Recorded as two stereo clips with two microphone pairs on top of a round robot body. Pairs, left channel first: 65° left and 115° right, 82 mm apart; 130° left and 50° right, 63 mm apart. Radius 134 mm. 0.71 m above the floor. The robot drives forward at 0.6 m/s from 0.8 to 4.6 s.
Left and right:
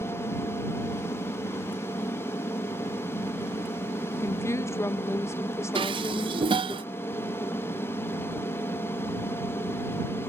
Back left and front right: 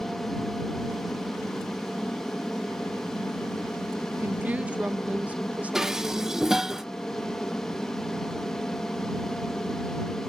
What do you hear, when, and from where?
0.0 s an aircraft: 60° left; by 10.3 s 65° left
4.2 s a woman speaking: 15° left; by 6.8 s 25° left
5.8 s dishes clattering: 135° right